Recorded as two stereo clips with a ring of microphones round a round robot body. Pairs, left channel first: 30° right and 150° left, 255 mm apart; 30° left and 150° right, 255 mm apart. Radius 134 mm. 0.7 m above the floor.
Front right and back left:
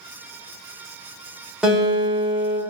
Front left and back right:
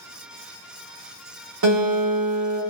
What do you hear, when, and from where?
1.6 s a guitar: 125° right, 1.2 m